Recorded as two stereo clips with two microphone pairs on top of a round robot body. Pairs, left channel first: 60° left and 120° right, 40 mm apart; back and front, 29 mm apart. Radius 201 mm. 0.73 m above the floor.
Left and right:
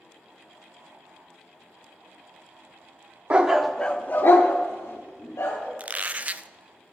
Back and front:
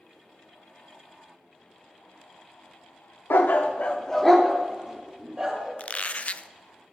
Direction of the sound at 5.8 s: 160° right.